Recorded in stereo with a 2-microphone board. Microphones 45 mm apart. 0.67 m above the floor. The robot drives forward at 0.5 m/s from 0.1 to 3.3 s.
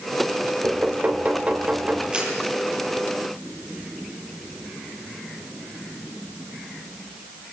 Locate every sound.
0.6 s knocking: 35° right (ahead or behind), 2.5 m; by 2.0 s 30° right (ahead or behind), 3 m
2.1 s a camera shutter: 25° right (ahead or behind), 7 m